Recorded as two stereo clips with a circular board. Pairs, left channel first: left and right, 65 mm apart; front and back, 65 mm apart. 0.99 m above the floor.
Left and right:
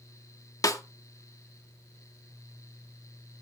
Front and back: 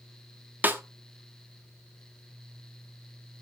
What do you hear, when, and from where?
0.6 s a snare drum: 120° left, 1.5 m